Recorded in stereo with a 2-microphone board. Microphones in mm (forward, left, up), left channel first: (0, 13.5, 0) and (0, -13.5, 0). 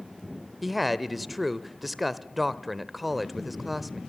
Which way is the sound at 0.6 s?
5° right (ahead or behind).